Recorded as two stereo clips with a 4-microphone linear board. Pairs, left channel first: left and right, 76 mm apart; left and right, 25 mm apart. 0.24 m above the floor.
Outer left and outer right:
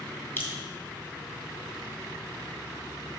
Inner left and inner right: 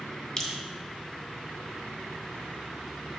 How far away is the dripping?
About 1.8 m.